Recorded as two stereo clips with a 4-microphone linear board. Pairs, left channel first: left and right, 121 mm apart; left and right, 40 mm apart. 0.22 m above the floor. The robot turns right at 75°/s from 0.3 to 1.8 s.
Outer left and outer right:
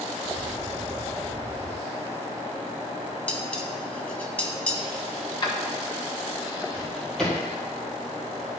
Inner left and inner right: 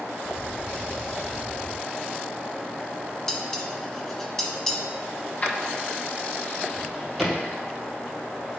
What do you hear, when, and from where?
3.3 s dishes clattering: 10° left (ahead or behind), 0.9 m
5.4 s keys jangling: 35° left (ahead or behind), 1.1 m
6.7 s a drawer: 5° left (ahead or behind), 3 m